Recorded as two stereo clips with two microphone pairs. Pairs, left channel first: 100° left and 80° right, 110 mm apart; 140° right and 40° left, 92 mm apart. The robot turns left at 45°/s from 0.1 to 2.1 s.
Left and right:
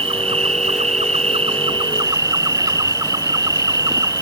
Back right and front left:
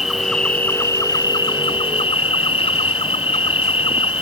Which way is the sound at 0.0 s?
50° right.